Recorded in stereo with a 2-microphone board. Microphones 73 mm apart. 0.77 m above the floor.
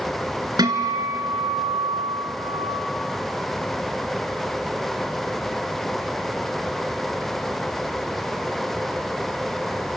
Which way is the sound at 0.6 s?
65° right (ahead or behind).